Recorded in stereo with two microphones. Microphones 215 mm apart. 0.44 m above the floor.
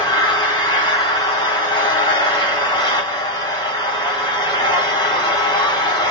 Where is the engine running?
20° left (ahead or behind), 2.5 m.